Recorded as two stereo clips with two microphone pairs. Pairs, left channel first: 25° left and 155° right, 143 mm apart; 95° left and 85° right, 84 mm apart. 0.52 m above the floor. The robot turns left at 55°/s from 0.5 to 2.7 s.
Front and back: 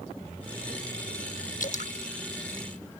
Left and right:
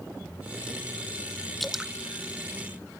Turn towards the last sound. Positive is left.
turn(degrees=-55)